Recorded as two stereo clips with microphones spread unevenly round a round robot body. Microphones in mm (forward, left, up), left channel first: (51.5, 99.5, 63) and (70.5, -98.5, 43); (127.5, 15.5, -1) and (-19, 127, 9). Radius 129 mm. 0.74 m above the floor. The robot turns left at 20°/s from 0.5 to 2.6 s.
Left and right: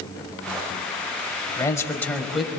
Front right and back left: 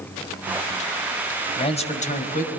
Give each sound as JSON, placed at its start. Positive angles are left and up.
{"t": 1.6, "sound": "a man speaking", "azimuth_deg": 25, "distance_m": 4.5}